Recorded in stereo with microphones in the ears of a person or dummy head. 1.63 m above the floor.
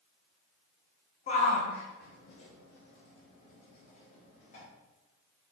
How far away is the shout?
About 1.3 m.